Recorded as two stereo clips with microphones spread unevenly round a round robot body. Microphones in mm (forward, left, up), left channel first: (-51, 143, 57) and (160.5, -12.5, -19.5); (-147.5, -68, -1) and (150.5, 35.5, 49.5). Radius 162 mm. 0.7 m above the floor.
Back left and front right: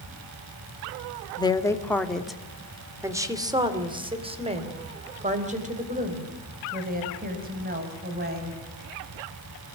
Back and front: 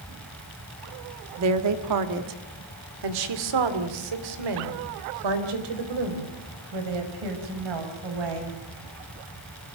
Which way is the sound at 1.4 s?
60° left.